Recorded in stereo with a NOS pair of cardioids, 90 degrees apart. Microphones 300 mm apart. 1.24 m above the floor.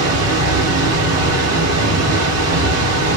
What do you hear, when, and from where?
0.0 s a machine running: 55° right, 1.0 m